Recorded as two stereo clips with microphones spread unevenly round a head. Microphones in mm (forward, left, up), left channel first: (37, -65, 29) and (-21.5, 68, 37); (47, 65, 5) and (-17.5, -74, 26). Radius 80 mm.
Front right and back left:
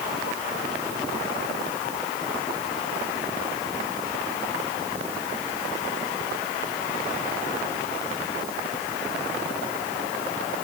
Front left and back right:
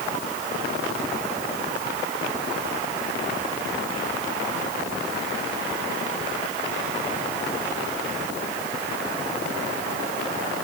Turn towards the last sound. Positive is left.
No sound to turn to.